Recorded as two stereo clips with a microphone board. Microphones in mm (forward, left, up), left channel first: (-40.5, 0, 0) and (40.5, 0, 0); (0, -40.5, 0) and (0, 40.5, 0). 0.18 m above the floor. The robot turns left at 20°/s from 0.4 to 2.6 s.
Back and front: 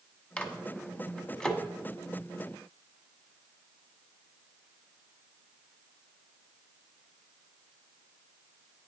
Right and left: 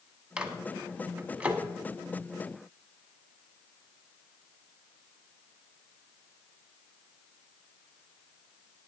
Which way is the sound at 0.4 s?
145° left.